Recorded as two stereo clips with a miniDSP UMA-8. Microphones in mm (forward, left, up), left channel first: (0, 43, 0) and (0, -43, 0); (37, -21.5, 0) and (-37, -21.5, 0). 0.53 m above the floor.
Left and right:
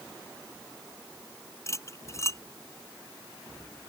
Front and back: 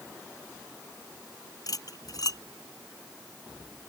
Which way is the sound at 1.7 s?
35° left.